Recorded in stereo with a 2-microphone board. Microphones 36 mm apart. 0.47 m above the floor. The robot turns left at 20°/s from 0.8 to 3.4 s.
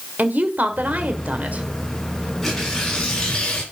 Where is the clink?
No clink in this recording.